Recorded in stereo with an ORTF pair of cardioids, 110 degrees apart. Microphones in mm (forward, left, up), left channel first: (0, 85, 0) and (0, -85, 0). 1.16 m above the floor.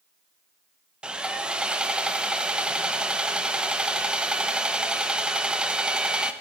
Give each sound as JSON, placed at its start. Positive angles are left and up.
{"t": 1.0, "sound": "sawing", "azimuth_deg": -5, "distance_m": 0.6}